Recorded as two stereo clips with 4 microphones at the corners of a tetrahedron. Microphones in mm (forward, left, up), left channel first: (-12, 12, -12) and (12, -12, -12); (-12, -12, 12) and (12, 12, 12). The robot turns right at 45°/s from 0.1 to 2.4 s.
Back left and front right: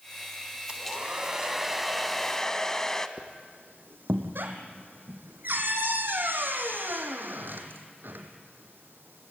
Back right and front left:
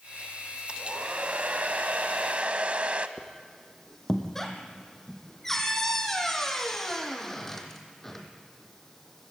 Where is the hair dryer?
5° right, 0.8 m; by 3.1 s 70° left, 0.8 m.